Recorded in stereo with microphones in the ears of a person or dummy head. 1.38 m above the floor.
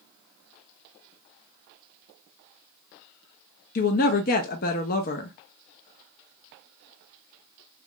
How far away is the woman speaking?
About 0.5 m.